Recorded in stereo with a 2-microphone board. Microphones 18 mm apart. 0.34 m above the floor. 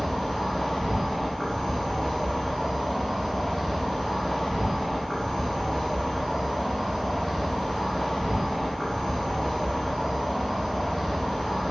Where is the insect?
35° left (ahead or behind), 1.0 m.